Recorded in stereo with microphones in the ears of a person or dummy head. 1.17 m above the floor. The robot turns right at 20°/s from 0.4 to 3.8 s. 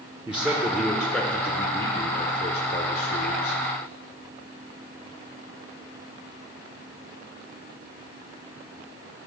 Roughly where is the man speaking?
Ahead.